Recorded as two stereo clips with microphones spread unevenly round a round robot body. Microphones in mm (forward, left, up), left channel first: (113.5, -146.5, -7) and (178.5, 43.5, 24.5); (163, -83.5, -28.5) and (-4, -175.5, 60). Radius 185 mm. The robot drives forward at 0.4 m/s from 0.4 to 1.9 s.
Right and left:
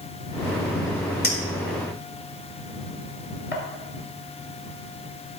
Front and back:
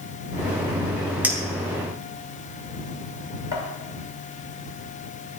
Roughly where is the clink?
Right.